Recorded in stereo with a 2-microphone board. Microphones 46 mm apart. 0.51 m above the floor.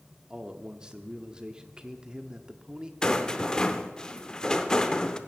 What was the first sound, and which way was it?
A man speaking, 20° right (ahead or behind).